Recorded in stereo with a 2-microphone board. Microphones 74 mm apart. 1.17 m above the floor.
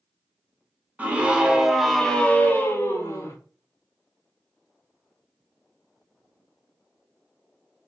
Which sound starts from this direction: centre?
A scream, at 1.0 s.